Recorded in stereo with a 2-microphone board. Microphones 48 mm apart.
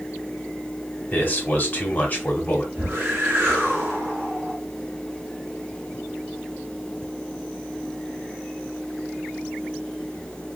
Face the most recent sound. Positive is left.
turn(degrees=-55)  # may be behind; listen again after turning